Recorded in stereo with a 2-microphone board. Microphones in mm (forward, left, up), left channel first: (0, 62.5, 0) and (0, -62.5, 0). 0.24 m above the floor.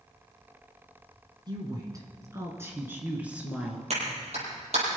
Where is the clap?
60° right (ahead or behind), 6.5 m.